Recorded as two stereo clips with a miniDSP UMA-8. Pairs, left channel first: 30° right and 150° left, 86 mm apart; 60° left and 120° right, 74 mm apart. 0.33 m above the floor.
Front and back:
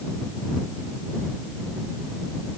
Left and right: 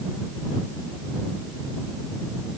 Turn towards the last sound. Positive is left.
No sound to turn to.